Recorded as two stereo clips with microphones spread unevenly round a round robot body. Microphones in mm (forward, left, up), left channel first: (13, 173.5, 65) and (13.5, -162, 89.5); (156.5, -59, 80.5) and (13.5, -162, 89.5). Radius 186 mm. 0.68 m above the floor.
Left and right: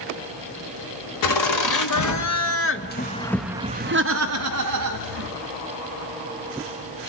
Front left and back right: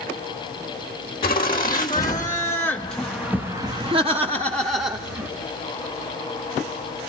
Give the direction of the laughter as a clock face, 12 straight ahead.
9 o'clock.